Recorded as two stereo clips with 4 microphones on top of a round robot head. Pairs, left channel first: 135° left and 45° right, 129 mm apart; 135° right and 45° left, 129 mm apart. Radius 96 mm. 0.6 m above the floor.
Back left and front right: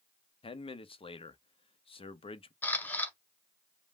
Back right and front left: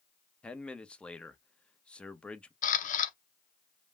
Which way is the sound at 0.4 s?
145° left.